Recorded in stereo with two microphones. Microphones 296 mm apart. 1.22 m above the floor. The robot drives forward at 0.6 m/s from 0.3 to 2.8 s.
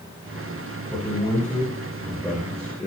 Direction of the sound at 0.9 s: 5° left (ahead or behind).